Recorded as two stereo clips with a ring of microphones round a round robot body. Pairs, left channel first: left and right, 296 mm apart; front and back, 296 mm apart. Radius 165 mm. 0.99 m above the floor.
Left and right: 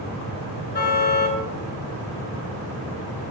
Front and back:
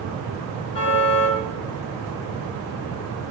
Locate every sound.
0.7 s a car horn: 35° left, 7.5 m